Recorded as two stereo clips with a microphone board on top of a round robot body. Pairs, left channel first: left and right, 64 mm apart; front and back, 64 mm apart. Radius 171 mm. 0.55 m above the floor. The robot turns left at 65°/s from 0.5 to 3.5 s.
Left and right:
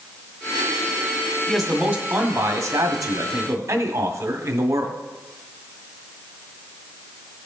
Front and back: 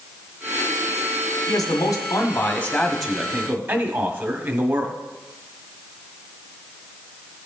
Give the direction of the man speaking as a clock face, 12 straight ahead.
12 o'clock.